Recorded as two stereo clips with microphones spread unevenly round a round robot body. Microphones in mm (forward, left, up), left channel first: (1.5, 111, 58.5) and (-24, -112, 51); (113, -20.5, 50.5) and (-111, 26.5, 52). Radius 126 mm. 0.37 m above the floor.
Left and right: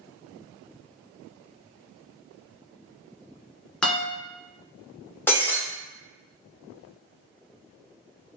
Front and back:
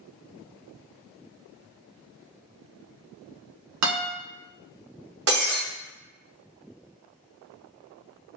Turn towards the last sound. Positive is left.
turn(degrees=165)